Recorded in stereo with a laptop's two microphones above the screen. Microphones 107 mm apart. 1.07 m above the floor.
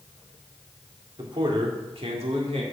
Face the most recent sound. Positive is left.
turn(degrees=-85)